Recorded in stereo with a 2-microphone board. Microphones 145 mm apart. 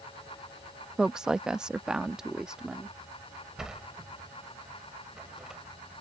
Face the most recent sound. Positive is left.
turn(degrees=-5)  # may be behind; listen again after turning